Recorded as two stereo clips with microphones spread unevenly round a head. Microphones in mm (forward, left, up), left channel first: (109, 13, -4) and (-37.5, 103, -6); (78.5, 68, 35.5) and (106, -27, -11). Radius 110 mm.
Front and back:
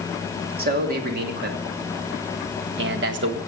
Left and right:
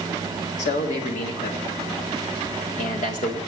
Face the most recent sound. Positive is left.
turn(degrees=145)